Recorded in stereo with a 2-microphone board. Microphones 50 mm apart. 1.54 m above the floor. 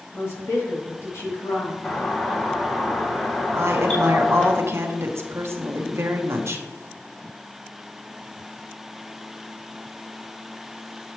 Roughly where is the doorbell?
Left.